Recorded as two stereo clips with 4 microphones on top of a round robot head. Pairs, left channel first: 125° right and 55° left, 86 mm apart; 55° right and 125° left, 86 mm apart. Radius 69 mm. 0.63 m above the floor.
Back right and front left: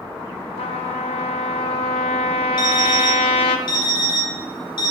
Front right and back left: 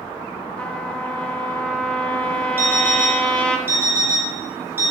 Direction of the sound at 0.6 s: 130° right.